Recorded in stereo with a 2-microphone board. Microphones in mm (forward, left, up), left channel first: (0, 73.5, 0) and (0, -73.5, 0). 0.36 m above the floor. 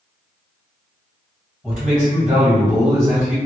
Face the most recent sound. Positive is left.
turn(degrees=-5)  # may be behind; listen again after turning